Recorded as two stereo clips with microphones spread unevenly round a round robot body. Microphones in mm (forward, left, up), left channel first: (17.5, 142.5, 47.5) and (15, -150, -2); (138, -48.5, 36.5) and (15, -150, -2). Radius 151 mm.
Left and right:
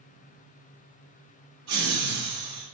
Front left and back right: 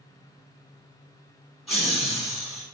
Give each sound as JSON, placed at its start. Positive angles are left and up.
{"t": 1.7, "sound": "laughter", "azimuth_deg": -60, "distance_m": 1.0}